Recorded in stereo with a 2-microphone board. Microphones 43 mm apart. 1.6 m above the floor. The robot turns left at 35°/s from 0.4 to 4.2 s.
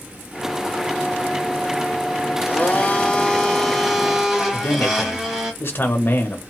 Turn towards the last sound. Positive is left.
turn(degrees=55)  # may be behind; listen again after turning